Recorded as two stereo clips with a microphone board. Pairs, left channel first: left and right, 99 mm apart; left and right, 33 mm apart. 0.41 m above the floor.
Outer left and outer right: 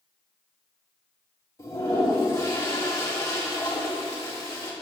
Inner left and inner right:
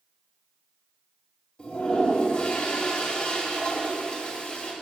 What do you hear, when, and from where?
1.6 s a toilet flushing: 30° left (ahead or behind), 2.5 m